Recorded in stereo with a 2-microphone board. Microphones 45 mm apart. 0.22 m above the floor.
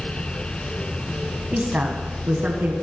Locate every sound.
1.5 s a woman speaking: 35° right (ahead or behind), 1.3 m; by 2.7 s 50° right (ahead or behind), 2.5 m